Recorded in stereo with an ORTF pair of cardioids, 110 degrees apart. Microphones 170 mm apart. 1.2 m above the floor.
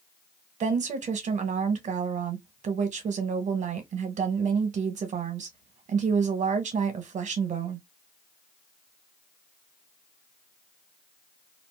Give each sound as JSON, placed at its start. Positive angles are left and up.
{"t": 0.6, "sound": "a woman speaking", "azimuth_deg": -45, "distance_m": 1.2}